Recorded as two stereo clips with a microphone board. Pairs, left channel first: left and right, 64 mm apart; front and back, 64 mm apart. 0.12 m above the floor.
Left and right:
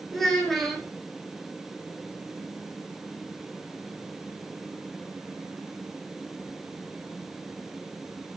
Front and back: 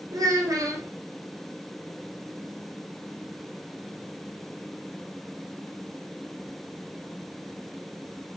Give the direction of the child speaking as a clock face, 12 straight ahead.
6 o'clock.